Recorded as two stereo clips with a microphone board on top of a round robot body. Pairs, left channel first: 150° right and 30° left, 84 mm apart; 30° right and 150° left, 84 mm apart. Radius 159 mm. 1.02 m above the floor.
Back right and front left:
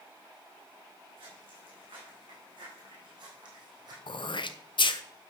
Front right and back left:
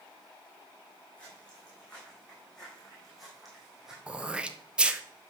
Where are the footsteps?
50° left, 6 m; by 4.0 s 65° left, 3.5 m.